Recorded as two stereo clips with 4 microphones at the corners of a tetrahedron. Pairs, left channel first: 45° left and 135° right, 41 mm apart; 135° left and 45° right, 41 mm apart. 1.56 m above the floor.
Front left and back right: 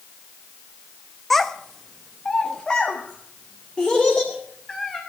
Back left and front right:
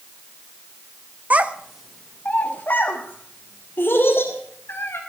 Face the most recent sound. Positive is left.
turn(degrees=125)